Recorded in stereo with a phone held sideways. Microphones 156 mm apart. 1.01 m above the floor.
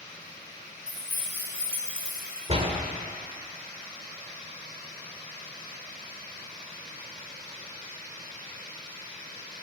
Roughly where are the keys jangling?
Right.